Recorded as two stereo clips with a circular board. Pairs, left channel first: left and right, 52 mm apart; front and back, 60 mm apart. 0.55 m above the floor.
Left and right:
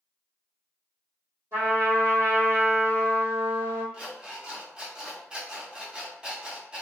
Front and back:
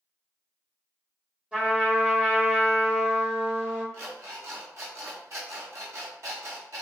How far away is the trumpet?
About 1.8 m.